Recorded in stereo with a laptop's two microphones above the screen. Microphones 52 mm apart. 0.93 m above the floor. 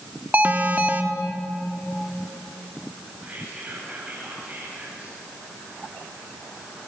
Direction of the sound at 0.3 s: 35° right (ahead or behind).